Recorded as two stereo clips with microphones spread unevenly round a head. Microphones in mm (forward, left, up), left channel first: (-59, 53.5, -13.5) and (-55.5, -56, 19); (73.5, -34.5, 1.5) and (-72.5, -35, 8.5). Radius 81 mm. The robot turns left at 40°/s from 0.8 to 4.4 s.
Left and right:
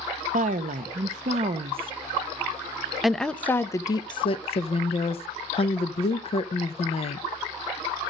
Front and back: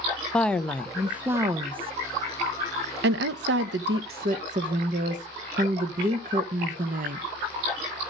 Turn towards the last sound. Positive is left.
turn(degrees=130)